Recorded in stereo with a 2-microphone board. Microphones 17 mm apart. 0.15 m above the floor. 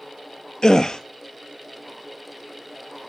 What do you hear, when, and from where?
0.6 s a gasp: 45° left (ahead or behind), 0.5 m